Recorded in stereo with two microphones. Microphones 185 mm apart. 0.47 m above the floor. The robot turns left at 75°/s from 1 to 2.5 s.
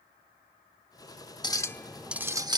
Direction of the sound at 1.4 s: 40° left.